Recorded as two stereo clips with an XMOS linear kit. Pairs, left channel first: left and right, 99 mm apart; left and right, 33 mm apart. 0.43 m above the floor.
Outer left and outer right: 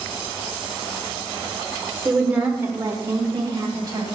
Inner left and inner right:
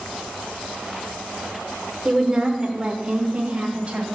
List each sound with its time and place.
2.0 s a woman speaking: 5° right (ahead or behind), 1.2 m; by 4.1 s 40° right (ahead or behind), 2.5 m